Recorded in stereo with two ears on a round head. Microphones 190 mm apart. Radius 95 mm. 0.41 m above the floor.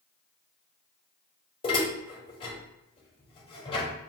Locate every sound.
1.6 s dishes clattering: 25° left (ahead or behind), 1.1 m